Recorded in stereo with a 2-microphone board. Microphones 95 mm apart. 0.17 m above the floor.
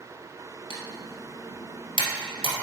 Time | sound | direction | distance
0.7 | typing on a keyboard | 70° left (ahead or behind) | 1.5 m